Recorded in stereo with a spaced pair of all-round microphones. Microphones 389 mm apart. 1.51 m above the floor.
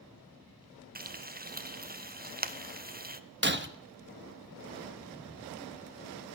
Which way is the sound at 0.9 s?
25° right (ahead or behind).